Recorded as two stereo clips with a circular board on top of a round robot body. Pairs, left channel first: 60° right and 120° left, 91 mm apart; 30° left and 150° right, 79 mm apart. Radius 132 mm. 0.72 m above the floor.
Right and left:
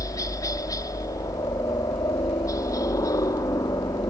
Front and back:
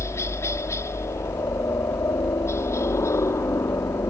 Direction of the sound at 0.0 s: 15° right.